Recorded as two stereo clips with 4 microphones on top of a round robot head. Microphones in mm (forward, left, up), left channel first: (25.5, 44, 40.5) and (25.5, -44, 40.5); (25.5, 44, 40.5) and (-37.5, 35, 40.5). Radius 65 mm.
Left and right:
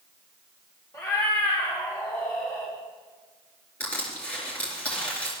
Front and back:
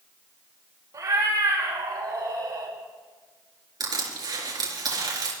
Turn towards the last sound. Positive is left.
turn(degrees=170)